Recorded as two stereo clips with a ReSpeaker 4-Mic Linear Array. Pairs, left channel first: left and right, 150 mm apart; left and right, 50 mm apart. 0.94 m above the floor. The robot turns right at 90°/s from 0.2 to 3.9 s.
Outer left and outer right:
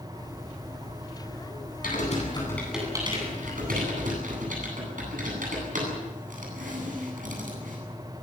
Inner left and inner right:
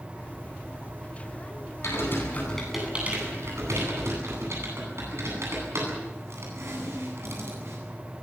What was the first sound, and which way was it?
Typing on a keyboard, 75° left (ahead or behind).